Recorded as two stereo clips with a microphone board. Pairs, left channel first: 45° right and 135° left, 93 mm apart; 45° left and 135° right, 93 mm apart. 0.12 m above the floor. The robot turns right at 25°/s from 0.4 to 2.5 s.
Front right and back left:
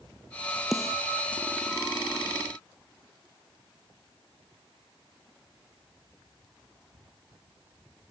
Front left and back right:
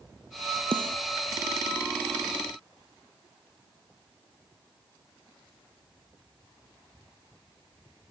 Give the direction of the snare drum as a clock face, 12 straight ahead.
5 o'clock.